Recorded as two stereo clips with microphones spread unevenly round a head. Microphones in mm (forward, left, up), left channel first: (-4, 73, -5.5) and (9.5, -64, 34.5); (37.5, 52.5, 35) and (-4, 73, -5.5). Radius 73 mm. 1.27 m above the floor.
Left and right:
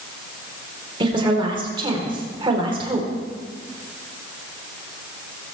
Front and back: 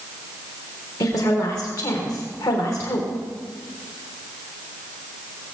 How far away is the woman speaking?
About 4.5 m.